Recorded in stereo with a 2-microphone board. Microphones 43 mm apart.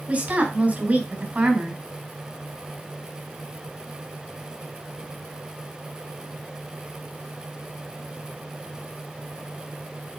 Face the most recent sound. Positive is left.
turn(degrees=-40)  # may be behind; listen again after turning